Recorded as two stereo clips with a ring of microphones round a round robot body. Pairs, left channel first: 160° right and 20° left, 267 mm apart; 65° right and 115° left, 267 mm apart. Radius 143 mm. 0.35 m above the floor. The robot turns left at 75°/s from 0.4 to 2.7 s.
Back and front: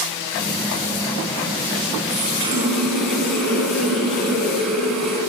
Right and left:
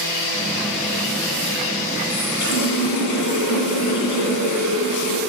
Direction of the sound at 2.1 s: 25° right.